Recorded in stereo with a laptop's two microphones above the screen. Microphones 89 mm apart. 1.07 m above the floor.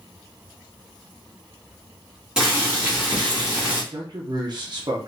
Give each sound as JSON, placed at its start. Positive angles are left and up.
{"t": 2.4, "sound": "boiling", "side_deg": -10, "distance_m": 1.3}
{"t": 3.9, "sound": "a man speaking", "side_deg": -50, "distance_m": 0.7}